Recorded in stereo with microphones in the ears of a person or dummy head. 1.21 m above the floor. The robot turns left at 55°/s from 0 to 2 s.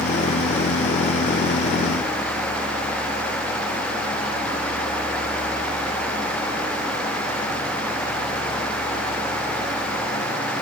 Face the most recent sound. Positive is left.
No sound to turn to.